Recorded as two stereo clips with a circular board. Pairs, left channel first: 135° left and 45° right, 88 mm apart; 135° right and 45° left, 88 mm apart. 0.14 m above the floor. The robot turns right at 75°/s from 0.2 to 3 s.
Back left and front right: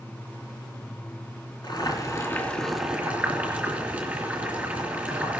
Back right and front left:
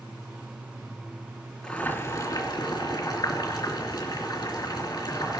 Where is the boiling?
145° left, 3 m; by 5.4 s 115° right, 3 m.